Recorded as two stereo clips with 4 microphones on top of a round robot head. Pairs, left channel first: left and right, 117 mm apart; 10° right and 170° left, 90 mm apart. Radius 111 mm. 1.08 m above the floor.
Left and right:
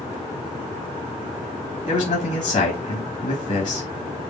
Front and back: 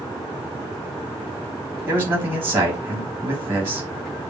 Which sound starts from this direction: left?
A man speaking, at 1.9 s.